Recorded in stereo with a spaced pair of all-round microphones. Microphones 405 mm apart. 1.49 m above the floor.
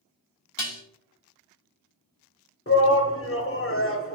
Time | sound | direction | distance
0.6 | dishes clattering | 55° left (ahead or behind) | 1.0 m
2.7 | a shout | 35° left (ahead or behind) | 0.9 m